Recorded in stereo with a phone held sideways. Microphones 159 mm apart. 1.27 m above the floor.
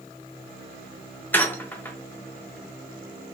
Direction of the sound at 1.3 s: 10° left (ahead or behind).